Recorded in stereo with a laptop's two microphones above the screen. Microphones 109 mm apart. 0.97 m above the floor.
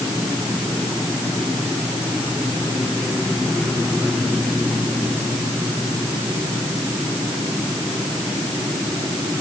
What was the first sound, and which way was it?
Only background noise.